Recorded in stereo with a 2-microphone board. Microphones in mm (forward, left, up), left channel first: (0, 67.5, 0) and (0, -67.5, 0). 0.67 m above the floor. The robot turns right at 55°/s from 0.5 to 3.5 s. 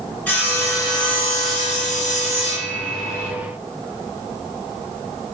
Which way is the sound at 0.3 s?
10° left.